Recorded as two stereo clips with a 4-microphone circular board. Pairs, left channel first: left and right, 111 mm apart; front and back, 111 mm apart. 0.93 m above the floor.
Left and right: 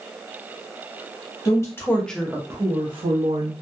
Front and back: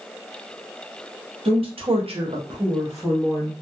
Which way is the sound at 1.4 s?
145° left.